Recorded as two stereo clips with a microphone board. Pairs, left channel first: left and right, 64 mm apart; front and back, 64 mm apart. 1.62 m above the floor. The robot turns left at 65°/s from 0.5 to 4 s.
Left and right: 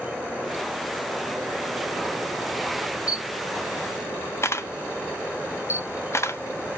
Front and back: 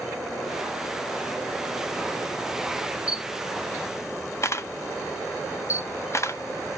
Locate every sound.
3.1 s a camera shutter: 105° left, 0.6 m; by 6.8 s 45° left, 0.6 m